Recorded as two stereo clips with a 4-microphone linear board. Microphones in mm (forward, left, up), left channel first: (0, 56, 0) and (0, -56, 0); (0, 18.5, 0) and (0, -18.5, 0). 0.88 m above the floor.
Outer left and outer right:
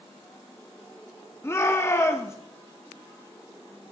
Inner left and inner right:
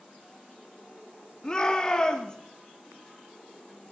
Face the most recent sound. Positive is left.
turn(degrees=25)  # may be behind; listen again after turning